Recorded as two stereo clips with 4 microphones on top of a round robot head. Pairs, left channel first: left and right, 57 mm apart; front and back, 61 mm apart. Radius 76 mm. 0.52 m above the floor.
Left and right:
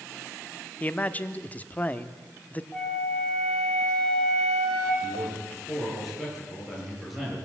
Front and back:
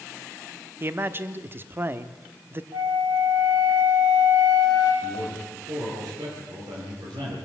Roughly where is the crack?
I don't hear a crack.